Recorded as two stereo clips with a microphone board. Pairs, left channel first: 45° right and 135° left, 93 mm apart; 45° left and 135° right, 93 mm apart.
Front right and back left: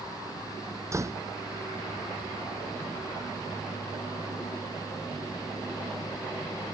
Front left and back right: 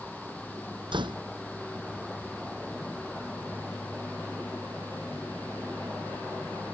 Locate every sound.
0.9 s a door slam: 165° right